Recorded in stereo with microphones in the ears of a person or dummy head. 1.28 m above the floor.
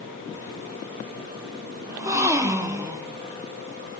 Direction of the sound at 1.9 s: 25° right (ahead or behind).